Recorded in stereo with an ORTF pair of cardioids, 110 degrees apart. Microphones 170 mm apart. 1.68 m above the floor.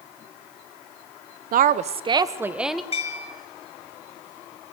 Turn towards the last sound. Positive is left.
turn(degrees=40)